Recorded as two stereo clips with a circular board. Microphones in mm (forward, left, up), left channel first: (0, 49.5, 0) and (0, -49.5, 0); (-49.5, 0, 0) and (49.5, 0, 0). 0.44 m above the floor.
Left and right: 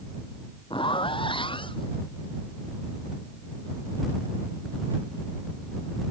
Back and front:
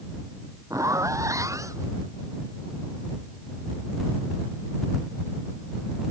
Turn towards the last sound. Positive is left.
turn(degrees=60)